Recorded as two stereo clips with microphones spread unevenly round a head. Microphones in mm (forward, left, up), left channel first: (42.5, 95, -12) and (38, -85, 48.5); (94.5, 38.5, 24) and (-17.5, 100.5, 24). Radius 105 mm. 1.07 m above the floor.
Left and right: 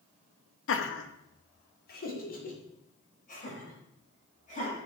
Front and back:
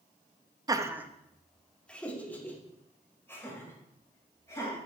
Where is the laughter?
90° left, 1.0 m; by 4.8 s 40° left, 6 m.